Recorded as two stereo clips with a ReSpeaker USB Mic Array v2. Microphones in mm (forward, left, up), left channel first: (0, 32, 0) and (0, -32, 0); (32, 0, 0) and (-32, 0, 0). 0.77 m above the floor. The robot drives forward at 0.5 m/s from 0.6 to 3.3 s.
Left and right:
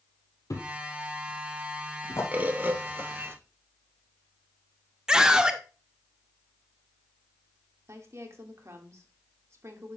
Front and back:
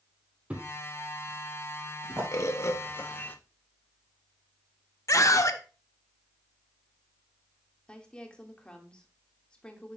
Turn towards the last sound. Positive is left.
turn(degrees=-70)